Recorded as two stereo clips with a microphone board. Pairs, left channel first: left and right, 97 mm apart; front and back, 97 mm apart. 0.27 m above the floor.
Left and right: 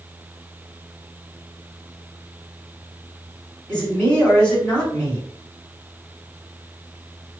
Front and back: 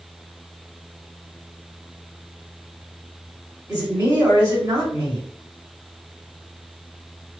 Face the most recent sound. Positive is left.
turn(degrees=165)